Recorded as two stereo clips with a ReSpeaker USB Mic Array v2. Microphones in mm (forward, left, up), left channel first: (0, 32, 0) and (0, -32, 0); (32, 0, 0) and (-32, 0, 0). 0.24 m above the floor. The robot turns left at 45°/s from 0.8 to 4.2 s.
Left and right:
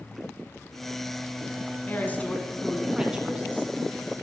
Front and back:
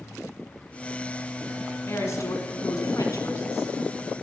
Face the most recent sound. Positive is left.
turn(degrees=-65)